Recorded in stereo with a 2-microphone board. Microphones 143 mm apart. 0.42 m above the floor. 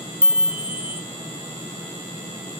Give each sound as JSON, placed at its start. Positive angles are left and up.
{"t": 0.2, "sound": "a chime", "side_deg": -15, "distance_m": 1.0}